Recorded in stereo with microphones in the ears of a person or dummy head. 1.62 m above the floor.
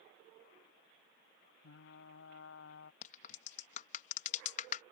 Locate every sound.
1.6 s frying: 70° left (ahead or behind)
3.0 s a crack: 45° left (ahead or behind)